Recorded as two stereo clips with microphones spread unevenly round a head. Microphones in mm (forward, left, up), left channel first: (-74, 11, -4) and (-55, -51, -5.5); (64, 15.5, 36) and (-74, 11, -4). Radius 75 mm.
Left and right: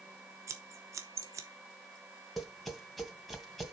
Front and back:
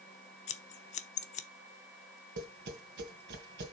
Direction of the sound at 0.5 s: 40° right.